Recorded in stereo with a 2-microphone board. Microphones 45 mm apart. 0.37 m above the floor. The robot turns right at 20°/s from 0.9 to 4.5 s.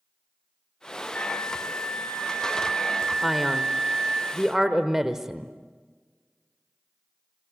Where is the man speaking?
5° left (ahead or behind), 1.1 m; by 5.5 s 10° right (ahead or behind), 1.1 m.